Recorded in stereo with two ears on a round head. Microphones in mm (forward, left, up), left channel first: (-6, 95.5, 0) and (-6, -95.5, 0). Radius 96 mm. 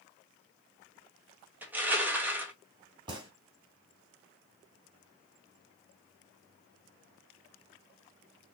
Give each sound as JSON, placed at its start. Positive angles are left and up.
{"t": 1.6, "sound": "crushing", "side_deg": -10, "distance_m": 1.6}
{"t": 3.1, "sound": "a gunshot", "side_deg": -20, "distance_m": 2.5}